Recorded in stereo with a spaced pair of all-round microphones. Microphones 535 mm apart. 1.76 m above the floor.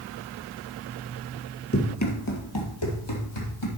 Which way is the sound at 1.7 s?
25° left (ahead or behind).